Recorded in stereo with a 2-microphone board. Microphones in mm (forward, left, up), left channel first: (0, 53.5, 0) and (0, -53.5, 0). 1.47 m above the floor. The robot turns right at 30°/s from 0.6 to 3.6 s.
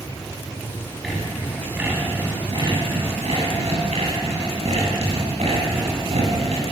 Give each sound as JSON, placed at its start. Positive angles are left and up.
{"t": 1.0, "sound": "sawing", "azimuth_deg": 180, "distance_m": 8.0}